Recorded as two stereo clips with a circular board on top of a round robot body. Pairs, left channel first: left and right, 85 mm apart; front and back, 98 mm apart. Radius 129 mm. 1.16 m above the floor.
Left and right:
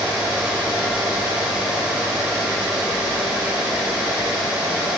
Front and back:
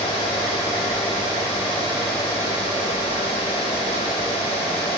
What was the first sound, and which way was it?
Only background noise.